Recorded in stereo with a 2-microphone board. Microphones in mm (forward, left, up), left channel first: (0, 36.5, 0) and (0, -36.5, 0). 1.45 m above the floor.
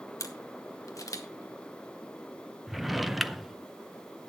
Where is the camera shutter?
50° left (ahead or behind), 1.2 m.